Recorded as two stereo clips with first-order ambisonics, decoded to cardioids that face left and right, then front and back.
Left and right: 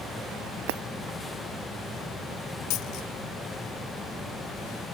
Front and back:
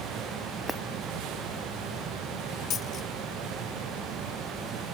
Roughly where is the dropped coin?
Ahead left.